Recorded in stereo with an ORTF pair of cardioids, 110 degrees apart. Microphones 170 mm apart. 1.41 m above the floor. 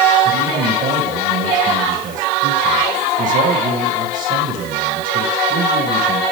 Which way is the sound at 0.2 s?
50° right.